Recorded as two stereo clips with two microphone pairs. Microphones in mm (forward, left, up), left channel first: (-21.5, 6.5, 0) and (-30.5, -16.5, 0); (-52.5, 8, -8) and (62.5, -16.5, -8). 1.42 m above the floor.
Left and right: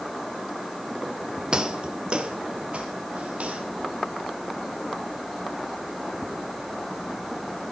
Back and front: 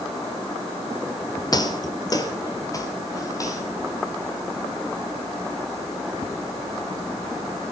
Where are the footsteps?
155° right, 1.9 m; by 3.6 s 135° right, 3.5 m.